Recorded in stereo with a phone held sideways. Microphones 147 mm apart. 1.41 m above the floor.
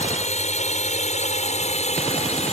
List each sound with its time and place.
0.0 s a drone: 60° left (ahead or behind); by 2.5 s 55° left (ahead or behind)